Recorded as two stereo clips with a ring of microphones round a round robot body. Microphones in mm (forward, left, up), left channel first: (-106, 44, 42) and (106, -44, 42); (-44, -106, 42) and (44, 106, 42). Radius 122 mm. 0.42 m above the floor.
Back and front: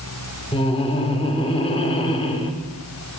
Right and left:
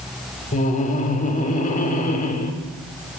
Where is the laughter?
150° right, 1.0 m.